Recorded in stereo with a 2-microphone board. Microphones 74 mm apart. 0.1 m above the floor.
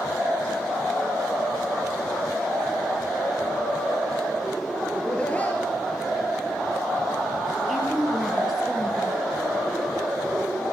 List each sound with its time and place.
4.9 s laughter: 10° left (ahead or behind), 1.7 m; by 7.6 s 35° left (ahead or behind), 4 m
7.7 s a woman speaking: centre (ahead or behind), 2.5 m